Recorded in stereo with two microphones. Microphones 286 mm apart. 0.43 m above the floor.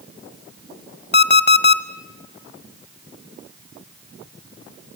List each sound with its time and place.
1.1 s an alarm clock: 35° left (ahead or behind), 0.9 m